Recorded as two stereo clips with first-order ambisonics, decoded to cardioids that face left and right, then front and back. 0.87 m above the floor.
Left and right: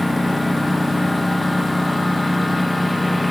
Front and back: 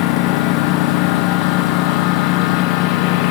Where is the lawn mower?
Straight ahead.